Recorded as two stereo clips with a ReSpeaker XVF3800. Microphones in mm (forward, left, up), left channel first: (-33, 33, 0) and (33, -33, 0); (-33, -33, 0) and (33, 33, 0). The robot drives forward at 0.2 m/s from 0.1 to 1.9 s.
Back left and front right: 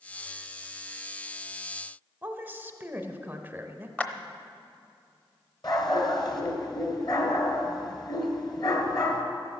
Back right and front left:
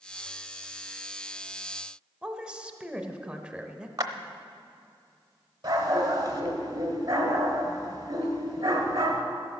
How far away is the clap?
About 0.9 m.